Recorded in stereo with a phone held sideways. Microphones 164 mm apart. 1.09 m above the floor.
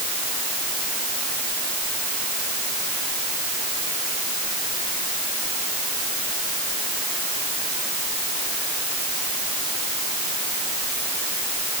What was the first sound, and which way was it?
Only background noise.